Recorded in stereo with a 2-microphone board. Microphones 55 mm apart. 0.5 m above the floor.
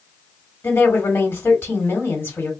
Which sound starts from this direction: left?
A woman speaking, at 0.6 s.